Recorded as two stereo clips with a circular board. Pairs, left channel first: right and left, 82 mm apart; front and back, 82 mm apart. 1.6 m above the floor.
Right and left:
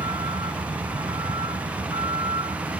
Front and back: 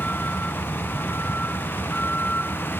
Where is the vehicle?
75° left; by 2.8 s 70° left.